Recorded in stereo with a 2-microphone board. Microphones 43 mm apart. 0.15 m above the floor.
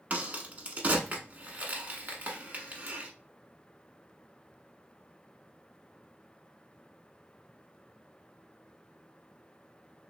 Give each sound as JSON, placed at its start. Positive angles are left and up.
{"t": 0.1, "sound": "a crack", "side_deg": -40, "distance_m": 0.9}